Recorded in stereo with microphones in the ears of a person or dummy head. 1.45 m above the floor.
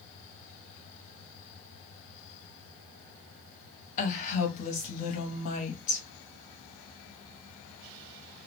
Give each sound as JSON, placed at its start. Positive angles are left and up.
{"t": 4.0, "sound": "a woman speaking", "side_deg": 40, "distance_m": 0.8}